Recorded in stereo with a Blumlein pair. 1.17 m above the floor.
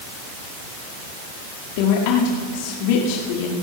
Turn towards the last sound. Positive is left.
turn(degrees=45)